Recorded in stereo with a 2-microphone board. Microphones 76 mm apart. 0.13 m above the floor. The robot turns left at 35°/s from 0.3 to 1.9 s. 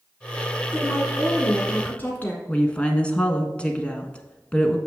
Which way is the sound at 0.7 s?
5° left (ahead or behind).